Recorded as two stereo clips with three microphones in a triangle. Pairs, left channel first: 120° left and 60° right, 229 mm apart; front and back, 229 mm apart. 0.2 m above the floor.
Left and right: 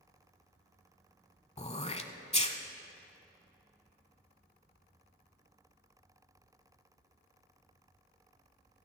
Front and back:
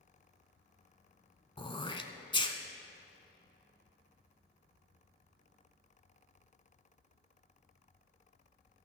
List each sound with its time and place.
1.6 s throat clearing: 60° left, 0.7 m